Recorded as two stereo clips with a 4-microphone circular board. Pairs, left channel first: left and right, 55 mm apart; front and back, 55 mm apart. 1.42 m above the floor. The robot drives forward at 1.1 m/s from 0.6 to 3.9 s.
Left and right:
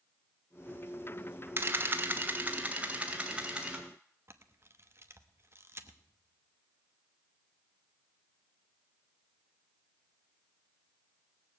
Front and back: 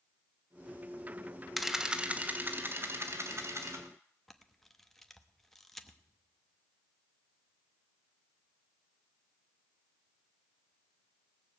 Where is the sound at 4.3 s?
85° right, 1.0 m.